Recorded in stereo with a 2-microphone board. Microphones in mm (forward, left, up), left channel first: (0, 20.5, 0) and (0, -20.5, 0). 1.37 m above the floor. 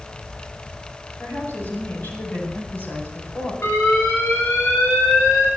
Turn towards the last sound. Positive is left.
turn(degrees=65)  # may be behind; listen again after turning